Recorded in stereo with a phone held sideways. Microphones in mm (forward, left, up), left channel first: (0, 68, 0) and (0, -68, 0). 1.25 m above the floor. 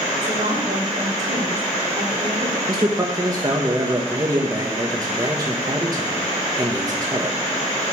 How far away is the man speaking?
About 1.3 m.